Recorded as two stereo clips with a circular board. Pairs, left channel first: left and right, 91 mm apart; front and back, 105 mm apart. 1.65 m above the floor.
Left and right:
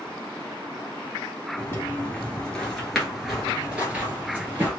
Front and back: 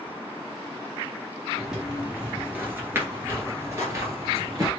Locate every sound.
1.6 s footsteps: 100° left, 1.7 m; by 4.7 s 145° right, 2 m